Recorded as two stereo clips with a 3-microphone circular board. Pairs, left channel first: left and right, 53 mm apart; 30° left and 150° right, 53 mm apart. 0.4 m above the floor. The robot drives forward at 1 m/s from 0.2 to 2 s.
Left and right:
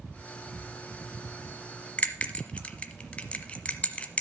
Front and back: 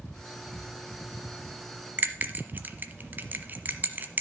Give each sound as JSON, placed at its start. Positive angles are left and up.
{"t": 2.0, "sound": "a bell", "azimuth_deg": 155, "distance_m": 1.0}